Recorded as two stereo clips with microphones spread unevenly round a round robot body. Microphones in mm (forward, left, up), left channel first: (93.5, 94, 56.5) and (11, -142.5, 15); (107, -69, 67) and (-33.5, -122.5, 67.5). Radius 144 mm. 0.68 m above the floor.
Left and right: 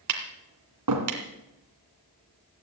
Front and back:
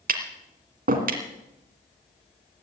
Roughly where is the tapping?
Behind right.